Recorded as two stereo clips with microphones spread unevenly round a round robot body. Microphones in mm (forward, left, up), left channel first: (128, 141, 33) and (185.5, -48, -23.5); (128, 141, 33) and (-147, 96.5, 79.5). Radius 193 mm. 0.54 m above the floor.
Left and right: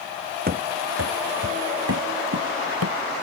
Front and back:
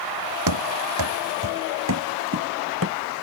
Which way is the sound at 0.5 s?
145° right.